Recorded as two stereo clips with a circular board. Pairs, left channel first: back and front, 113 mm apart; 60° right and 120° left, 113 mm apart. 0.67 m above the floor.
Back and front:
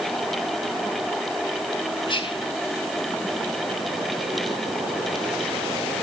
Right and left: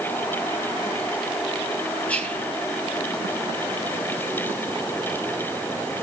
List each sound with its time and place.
2.1 s whispering: 135° right, 3.5 m